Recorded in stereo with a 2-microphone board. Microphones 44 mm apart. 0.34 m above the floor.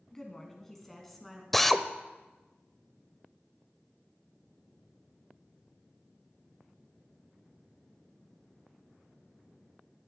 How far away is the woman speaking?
About 2.5 m.